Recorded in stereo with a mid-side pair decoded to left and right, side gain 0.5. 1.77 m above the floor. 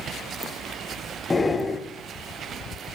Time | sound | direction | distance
1.3 | breathing | 20° left | 1.0 m